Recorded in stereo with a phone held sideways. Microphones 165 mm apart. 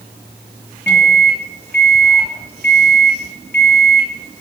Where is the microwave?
80° left, 1.7 m.